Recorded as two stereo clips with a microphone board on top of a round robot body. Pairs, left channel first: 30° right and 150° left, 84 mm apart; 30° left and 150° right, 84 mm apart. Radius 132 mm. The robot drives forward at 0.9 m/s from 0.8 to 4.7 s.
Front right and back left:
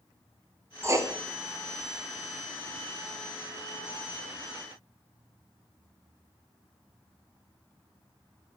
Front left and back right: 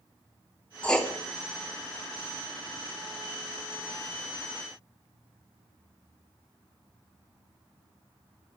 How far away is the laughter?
I don't hear laughter.